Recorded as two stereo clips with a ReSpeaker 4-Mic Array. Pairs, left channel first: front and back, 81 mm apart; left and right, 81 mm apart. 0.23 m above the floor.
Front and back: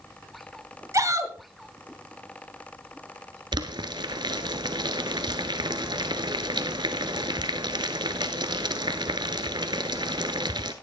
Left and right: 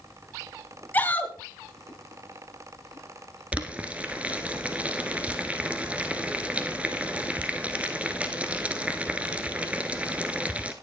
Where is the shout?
150° left, 1.6 m.